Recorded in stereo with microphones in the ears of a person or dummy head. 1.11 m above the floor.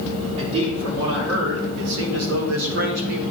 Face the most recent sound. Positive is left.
turn(degrees=-55)  # may be behind; listen again after turning